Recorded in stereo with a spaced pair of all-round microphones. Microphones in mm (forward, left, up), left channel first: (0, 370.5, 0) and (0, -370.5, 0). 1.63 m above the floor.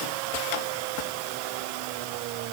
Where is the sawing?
No sawing in this recording.